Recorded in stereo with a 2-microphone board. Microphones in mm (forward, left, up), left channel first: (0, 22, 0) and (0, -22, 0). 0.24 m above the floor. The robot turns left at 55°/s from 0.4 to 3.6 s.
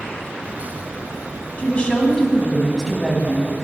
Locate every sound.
1.6 s a woman speaking: 55° left, 1.5 m; by 3.5 s 50° right, 1.5 m